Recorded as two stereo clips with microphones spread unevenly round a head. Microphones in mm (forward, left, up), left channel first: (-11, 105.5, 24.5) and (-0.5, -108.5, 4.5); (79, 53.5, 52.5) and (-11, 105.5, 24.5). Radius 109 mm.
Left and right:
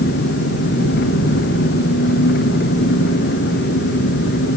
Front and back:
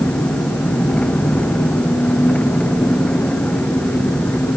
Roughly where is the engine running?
Ahead left.